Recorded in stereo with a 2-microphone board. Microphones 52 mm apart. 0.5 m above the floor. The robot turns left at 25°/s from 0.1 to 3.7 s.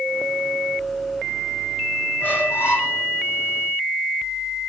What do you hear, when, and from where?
2.2 s a squeak: 40° left (ahead or behind), 3.5 m; by 3.0 s 60° left (ahead or behind), 3.5 m